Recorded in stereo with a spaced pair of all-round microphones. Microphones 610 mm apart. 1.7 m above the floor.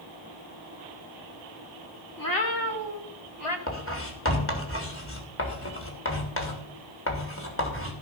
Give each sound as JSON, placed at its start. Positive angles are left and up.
{"t": 2.2, "sound": "a cat meowing", "side_deg": 30, "distance_m": 1.9}
{"t": 3.7, "sound": "writing", "side_deg": 20, "distance_m": 2.5}